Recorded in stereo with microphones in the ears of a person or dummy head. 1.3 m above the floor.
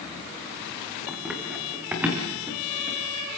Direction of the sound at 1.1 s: Centre (ahead or behind).